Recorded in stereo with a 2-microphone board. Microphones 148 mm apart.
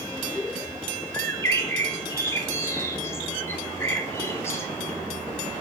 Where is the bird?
20° left (ahead or behind), 1.1 m.